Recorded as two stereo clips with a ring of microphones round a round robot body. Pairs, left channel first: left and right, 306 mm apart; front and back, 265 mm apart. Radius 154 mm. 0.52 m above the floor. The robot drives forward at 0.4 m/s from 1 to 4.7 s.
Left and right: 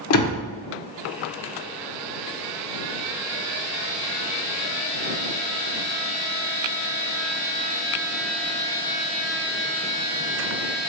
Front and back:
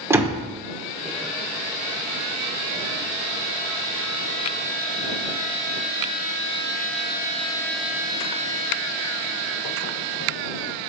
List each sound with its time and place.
0.1 s a door slam: 100° left, 1.2 m